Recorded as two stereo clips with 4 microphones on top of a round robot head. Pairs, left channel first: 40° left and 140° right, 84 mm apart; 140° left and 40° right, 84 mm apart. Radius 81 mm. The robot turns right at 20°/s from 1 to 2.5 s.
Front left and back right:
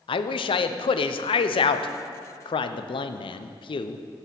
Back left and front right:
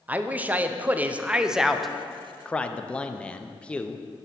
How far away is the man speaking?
About 0.5 m.